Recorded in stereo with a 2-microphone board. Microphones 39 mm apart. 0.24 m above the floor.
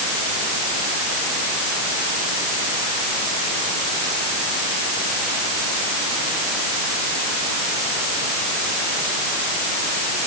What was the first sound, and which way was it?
Only background noise.